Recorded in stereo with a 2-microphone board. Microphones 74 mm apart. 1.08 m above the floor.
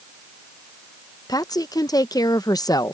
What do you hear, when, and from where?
1.3 s a woman speaking: 65° left (ahead or behind)